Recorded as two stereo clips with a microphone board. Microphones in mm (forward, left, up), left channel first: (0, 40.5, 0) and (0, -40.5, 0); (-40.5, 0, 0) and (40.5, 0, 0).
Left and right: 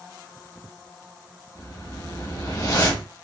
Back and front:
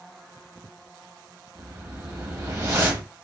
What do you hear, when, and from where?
1.6 s a whoosh: 50° left, 1.1 m